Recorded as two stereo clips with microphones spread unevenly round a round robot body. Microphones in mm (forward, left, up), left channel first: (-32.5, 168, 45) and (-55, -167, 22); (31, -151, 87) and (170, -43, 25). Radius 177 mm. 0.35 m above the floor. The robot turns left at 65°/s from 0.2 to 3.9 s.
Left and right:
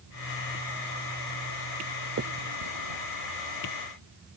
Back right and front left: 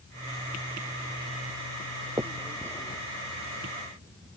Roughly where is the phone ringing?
No phone ringing in this recording.